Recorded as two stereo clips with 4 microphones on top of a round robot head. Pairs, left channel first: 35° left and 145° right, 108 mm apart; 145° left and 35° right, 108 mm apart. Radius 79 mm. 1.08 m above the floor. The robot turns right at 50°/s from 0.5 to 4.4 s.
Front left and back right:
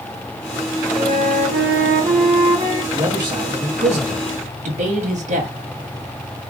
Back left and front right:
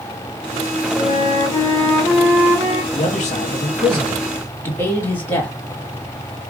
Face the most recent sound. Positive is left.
turn(degrees=-140)